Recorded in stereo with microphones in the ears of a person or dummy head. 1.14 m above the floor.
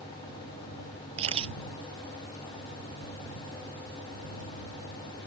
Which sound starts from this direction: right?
A camera shutter, at 1.2 s.